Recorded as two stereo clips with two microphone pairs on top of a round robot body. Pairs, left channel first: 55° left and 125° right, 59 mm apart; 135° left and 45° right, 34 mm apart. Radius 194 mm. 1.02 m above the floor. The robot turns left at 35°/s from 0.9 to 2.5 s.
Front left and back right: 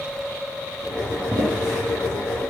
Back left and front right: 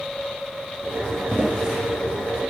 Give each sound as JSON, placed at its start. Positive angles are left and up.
{"t": 1.3, "sound": "footsteps", "azimuth_deg": -120, "distance_m": 1.7}